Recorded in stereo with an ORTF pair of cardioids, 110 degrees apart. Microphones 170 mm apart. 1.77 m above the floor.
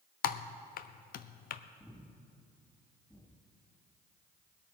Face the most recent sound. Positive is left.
turn(degrees=5)